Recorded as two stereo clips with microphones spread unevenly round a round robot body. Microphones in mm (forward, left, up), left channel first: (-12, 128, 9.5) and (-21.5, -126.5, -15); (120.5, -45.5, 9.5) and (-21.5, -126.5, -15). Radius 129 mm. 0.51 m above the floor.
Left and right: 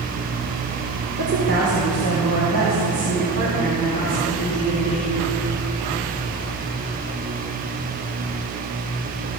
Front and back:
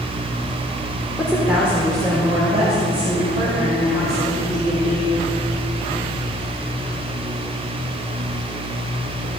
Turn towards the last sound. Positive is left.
turn(degrees=-110)